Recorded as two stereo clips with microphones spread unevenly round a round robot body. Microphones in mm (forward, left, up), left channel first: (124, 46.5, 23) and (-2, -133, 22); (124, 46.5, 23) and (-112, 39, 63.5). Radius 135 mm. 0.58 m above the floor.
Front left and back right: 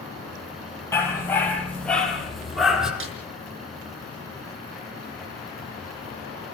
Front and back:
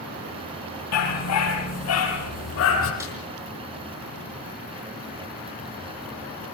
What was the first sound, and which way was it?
A dog barking, 20° right.